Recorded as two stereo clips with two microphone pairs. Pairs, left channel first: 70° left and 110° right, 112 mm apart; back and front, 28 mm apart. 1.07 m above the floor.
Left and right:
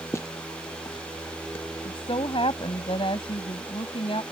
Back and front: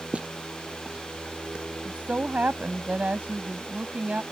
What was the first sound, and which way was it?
Footsteps, 15° left.